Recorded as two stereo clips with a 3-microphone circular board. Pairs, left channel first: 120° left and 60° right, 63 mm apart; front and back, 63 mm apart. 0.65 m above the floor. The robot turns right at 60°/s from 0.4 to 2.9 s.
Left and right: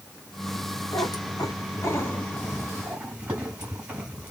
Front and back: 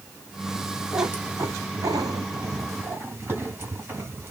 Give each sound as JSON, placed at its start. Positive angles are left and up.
{"t": 0.9, "sound": "a cat meowing", "azimuth_deg": 110, "distance_m": 1.5}